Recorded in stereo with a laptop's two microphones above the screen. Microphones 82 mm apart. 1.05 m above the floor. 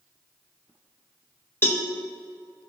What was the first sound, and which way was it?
A cowbell, 30° left (ahead or behind).